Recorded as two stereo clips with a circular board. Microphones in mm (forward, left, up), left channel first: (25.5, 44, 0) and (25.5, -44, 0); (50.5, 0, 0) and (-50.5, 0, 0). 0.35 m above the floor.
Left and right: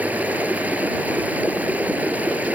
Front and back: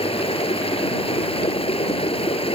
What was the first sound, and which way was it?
Running water, 15° right.